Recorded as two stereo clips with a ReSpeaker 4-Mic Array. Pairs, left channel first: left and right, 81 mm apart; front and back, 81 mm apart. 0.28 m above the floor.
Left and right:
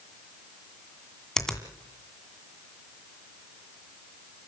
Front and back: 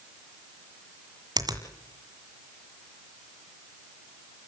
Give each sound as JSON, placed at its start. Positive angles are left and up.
{"t": 1.4, "sound": "a finger snap", "azimuth_deg": 170, "distance_m": 2.0}